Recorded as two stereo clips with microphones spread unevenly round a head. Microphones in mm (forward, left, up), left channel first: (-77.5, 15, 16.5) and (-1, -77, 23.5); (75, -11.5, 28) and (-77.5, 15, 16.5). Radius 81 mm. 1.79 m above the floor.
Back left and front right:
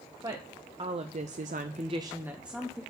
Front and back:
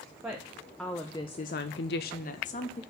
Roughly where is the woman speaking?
Right.